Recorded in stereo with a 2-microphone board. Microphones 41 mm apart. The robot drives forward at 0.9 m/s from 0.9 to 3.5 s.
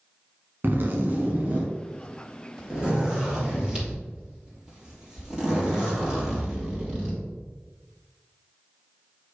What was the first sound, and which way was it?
A zipper, 50° right (ahead or behind).